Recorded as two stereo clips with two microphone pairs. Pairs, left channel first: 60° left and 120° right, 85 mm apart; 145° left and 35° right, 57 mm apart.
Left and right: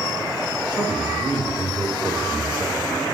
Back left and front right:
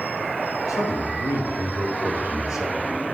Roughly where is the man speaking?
Behind.